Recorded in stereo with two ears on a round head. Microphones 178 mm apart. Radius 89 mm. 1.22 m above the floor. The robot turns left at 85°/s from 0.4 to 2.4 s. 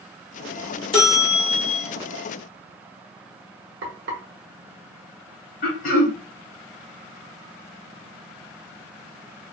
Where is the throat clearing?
45° left (ahead or behind), 1.0 m.